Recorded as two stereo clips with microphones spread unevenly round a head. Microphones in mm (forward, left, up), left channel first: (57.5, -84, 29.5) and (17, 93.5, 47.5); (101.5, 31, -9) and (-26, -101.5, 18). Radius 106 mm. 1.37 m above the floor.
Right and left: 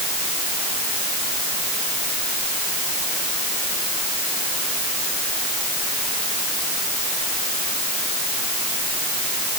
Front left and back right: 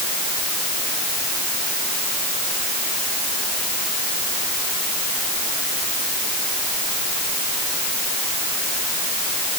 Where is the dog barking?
No dog barking in this recording.